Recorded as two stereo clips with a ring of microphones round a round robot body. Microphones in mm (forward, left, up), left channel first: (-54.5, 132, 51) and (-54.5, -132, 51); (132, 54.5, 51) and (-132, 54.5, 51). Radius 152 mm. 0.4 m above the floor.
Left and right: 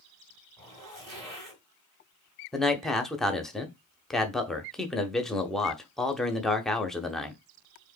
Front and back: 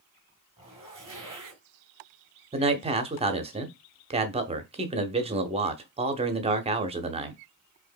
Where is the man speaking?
175° left, 0.8 m.